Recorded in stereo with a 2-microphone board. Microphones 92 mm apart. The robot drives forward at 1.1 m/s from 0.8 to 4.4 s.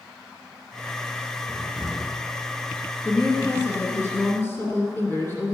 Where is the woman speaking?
20° left (ahead or behind), 2 m; by 5.5 s 25° left (ahead or behind), 1.8 m.